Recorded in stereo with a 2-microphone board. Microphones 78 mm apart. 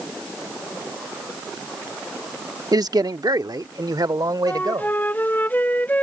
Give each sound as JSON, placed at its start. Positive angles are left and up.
{"t": 2.7, "sound": "a man speaking", "side_deg": -60}
{"t": 4.5, "sound": "a flute", "side_deg": 25}